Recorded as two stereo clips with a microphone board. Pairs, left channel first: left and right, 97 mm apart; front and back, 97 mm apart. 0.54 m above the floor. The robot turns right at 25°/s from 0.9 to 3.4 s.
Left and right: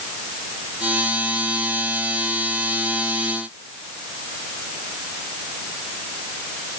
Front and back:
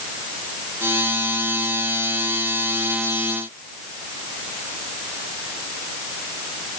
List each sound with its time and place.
Only background noise.